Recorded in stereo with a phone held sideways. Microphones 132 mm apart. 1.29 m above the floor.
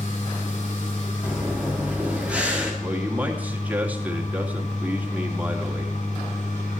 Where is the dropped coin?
I don't hear a dropped coin.